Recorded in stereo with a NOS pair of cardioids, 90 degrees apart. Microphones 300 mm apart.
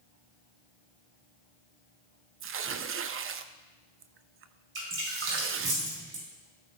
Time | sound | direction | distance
2.4 | tearing paper | 45° right | 0.6 m
4.8 | dripping | 45° right | 5.5 m